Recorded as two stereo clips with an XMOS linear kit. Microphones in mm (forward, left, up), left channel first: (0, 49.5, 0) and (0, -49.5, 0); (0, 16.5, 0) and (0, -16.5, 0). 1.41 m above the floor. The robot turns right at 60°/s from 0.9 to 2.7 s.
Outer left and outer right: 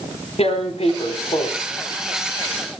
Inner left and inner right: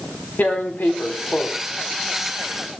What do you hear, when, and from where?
0.4 s tearing paper: 90° left, 4 m; by 1.5 s 130° left, 4 m